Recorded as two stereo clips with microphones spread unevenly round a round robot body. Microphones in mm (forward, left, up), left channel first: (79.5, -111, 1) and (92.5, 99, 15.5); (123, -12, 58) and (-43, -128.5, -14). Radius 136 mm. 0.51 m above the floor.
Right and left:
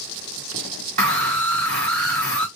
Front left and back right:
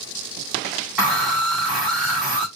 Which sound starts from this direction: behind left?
A scream, at 1.0 s.